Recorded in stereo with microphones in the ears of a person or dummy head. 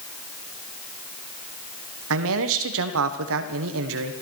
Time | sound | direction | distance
2.1 | a man speaking | 70° right (ahead or behind) | 1.5 m